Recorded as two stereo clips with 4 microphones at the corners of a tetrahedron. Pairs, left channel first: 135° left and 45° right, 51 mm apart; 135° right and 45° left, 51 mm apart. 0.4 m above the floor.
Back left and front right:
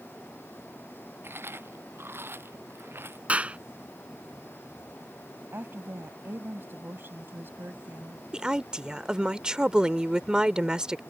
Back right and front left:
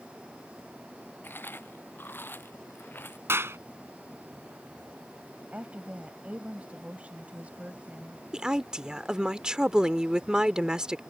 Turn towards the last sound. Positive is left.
turn(degrees=-5)